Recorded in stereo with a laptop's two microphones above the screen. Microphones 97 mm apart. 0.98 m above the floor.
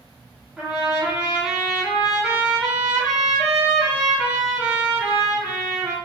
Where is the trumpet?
5° right (ahead or behind), 1.8 m.